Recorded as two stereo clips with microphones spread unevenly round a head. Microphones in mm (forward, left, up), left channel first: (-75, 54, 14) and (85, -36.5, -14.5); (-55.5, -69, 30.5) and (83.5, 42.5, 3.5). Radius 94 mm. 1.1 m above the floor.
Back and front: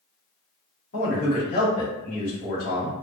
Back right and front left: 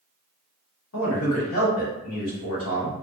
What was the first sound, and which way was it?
A man speaking, 160° right.